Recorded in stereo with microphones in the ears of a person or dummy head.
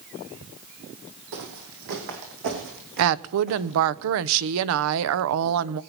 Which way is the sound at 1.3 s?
60° right (ahead or behind).